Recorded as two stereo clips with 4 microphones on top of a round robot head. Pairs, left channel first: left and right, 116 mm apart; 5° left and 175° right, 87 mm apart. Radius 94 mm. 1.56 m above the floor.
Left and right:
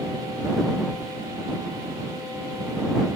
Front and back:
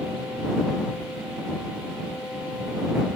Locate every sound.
Only background noise.